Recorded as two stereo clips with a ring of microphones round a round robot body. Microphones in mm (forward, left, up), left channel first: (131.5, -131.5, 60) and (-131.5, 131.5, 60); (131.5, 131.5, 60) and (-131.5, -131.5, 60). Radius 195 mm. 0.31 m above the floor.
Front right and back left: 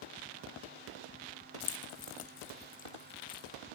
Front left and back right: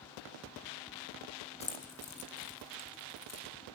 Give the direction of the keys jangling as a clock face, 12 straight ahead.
1 o'clock.